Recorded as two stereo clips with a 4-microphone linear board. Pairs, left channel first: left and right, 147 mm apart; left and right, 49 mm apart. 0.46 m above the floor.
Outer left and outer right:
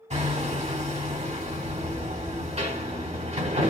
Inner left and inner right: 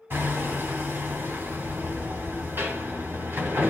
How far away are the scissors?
I don't hear scissors.